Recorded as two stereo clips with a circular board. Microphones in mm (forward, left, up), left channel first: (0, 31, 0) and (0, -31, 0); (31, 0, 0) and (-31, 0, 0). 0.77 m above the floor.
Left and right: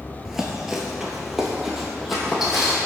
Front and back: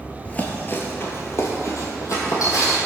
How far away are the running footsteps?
About 0.7 m.